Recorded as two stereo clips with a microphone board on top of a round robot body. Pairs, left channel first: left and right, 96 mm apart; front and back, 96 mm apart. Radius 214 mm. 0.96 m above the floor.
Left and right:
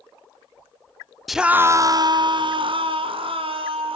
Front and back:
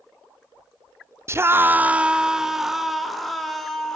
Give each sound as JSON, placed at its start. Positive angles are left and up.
{"t": 1.3, "sound": "a scream", "azimuth_deg": 180, "distance_m": 0.8}